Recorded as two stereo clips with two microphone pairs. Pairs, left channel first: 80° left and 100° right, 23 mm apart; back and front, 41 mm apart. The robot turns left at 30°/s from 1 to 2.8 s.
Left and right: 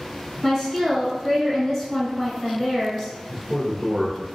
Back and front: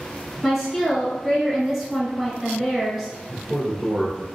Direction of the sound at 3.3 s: 35° right.